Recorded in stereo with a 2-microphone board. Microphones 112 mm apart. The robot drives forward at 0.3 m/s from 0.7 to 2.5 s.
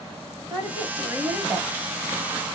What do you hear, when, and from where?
0.5 s a woman speaking: 15° right (ahead or behind), 3 m; by 1.7 s 10° right (ahead or behind), 3 m